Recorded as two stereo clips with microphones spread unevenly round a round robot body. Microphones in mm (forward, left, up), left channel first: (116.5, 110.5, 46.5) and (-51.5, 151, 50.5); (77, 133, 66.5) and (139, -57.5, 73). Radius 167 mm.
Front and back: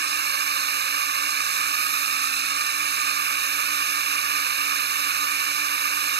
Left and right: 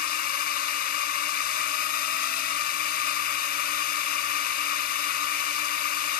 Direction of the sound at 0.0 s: 155° left.